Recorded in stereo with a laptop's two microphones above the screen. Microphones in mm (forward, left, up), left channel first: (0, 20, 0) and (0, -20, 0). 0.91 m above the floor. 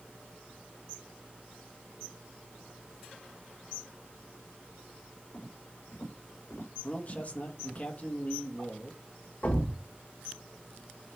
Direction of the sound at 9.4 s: 40° left (ahead or behind).